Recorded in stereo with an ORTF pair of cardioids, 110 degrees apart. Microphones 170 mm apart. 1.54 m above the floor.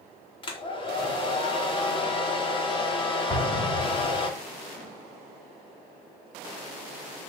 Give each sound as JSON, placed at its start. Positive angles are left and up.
{"t": 0.4, "sound": "a hair dryer", "azimuth_deg": 35, "distance_m": 4.5}
{"t": 3.3, "sound": "an explosion", "azimuth_deg": 25, "distance_m": 3.5}